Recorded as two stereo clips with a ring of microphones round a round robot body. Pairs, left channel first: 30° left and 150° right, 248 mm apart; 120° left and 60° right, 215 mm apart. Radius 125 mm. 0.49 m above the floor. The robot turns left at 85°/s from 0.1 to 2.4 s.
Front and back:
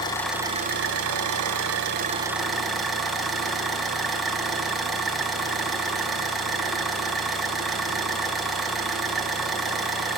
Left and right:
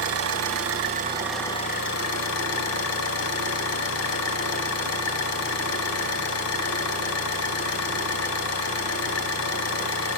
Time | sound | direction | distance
0.0 | an engine running | 45° right | 2 m